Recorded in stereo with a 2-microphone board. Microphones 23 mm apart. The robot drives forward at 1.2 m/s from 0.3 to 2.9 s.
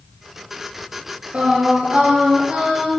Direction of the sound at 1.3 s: 70° right (ahead or behind).